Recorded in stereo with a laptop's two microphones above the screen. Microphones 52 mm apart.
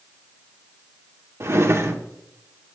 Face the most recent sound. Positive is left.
turn(degrees=-55)  # may be behind; listen again after turning